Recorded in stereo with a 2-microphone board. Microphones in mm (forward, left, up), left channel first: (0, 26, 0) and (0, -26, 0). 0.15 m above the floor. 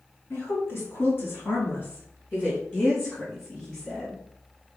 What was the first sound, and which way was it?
A woman speaking, 50° left (ahead or behind).